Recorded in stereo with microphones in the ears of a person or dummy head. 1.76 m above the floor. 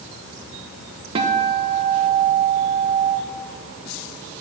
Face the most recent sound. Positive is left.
turn(degrees=-30)  # may be behind; listen again after turning